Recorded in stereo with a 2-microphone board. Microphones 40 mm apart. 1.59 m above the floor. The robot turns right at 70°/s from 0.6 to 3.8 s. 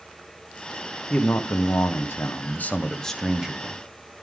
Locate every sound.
1.1 s a man speaking: 30° left, 1.0 m; by 3.8 s 140° right, 1.0 m